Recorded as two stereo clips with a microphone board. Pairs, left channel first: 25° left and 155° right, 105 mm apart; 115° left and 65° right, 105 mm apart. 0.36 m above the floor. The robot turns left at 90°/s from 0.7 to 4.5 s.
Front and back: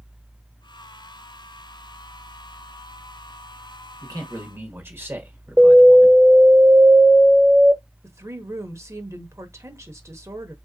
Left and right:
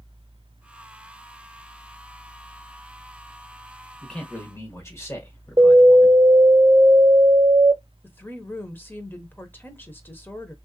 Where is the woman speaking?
165° left, 0.9 m.